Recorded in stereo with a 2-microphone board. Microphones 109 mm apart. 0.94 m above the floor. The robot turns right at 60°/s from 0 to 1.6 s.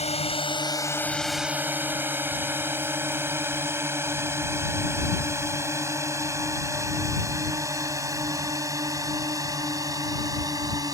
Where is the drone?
75° left (ahead or behind); by 10.9 s 35° right (ahead or behind).